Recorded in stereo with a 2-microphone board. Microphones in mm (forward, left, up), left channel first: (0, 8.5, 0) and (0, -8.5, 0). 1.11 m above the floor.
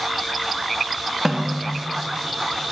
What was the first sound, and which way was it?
A snare drum, 30° right (ahead or behind).